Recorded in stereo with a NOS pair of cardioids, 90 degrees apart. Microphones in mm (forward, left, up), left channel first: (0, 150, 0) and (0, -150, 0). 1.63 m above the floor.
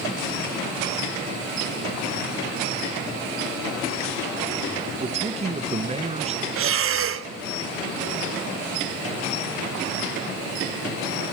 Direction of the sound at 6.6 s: 45° right.